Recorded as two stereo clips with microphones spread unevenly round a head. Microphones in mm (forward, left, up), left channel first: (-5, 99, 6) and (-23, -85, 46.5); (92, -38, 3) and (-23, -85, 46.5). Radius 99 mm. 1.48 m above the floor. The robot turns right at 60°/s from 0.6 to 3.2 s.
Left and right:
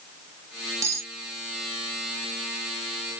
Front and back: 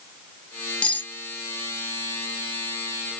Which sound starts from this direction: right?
Cutlery clinking, at 0.8 s.